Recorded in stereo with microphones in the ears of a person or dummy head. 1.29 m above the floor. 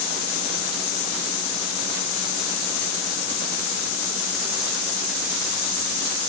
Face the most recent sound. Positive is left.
No sound to turn to.